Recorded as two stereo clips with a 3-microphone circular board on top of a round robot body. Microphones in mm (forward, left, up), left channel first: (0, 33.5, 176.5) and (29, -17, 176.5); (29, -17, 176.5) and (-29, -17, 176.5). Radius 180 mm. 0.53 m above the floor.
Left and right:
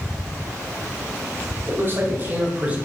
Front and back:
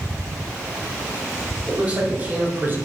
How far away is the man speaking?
About 4.5 m.